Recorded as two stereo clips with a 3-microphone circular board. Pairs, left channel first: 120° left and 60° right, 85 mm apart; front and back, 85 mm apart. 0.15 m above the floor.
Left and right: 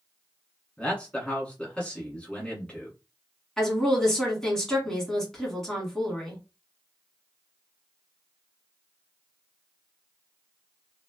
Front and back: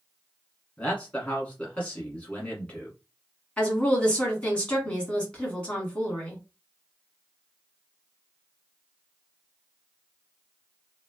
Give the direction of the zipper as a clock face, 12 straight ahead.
I don't hear a zipper.